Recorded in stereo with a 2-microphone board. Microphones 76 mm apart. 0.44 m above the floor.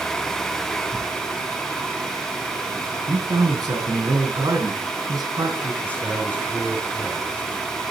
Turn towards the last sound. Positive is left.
turn(degrees=15)  # may be behind; listen again after turning